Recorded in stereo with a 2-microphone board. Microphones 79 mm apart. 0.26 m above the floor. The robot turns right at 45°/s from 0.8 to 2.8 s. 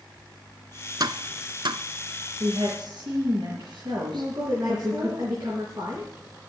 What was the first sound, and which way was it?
Tapping, 60° right (ahead or behind).